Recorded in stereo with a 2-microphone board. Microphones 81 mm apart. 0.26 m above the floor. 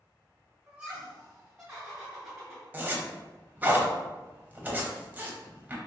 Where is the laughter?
15° right (ahead or behind), 1.1 m; by 2.6 s 5° right (ahead or behind), 1.9 m.